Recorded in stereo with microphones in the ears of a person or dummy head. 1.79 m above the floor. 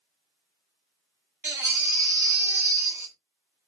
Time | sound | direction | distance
1.4 | a baby crying | 10° right (ahead or behind) | 1.0 m